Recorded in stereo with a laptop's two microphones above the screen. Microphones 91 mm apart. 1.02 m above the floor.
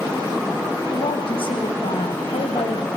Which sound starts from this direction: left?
A woman speaking, at 0.9 s.